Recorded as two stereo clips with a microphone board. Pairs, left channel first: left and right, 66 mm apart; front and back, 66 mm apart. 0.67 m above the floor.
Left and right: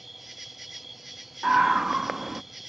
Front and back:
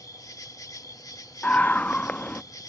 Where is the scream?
15° right.